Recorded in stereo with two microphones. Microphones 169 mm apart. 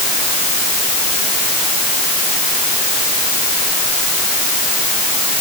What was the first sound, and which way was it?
Only background noise.